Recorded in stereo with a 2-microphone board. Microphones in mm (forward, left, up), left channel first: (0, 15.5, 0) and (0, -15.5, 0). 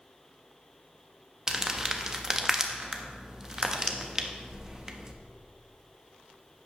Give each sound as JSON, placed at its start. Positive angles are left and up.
{"t": 1.5, "sound": "crumpling", "side_deg": -20, "distance_m": 0.7}